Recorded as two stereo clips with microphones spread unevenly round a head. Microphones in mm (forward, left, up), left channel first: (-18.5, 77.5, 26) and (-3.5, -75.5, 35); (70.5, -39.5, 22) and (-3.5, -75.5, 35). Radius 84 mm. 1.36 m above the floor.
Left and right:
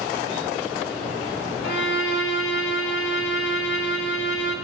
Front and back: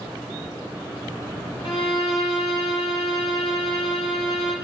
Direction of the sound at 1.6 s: 90° left.